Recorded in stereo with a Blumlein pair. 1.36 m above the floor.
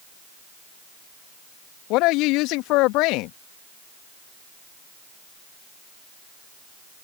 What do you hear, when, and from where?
1.9 s a woman speaking: 40° left